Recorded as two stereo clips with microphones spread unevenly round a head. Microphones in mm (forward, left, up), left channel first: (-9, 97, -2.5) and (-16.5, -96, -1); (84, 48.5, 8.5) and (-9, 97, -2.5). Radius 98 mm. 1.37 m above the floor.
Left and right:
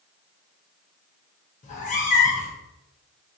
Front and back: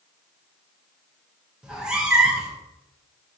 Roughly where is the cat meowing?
Ahead left.